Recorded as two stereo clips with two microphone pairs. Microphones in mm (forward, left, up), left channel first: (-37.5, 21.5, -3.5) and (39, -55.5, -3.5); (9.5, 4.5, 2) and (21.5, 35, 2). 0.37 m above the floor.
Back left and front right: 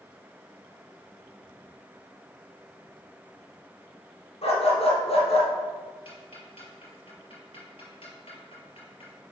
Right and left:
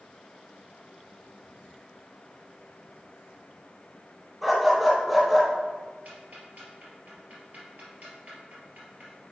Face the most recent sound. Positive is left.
turn(degrees=105)